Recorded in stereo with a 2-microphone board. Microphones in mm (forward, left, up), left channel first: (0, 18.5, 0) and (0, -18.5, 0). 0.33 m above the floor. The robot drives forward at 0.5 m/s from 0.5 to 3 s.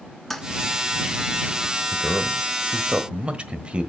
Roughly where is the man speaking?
Right.